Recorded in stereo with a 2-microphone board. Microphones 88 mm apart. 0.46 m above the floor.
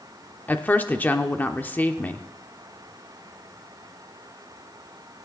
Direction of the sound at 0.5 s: 20° left (ahead or behind).